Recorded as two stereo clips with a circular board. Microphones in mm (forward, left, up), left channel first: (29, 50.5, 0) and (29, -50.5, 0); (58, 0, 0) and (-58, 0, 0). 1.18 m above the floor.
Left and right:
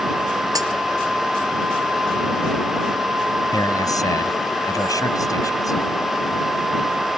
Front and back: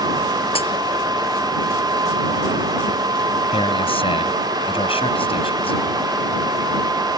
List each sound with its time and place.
0.6 s a dropped coin: 35° right
3.5 s a man speaking: 35° left